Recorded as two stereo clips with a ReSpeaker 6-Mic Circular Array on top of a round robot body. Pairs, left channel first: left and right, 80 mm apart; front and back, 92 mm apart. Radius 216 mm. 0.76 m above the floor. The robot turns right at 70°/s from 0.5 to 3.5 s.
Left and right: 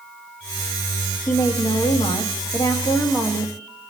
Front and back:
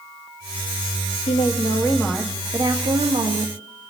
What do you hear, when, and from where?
1.3 s a woman speaking: 25° left, 1.7 m; by 3.5 s straight behind, 1.7 m